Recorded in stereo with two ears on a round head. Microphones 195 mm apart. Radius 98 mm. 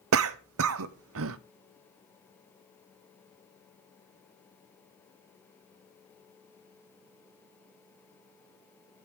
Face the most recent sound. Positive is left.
turn(degrees=-70)  # may be behind; listen again after turning